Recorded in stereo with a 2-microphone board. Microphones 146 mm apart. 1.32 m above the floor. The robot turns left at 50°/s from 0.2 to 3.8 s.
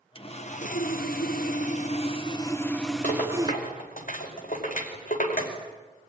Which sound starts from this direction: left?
A rattle, at 3.0 s.